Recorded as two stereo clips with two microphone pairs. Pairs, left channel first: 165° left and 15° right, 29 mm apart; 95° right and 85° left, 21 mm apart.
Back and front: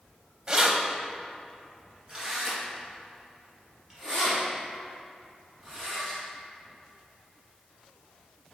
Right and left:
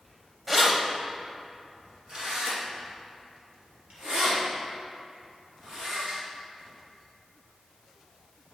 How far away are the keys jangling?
About 0.6 m.